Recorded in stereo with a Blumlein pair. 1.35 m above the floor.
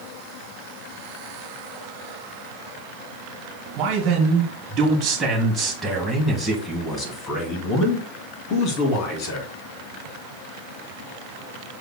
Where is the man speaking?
35° right, 1.9 m; by 9.5 s 45° left, 3 m.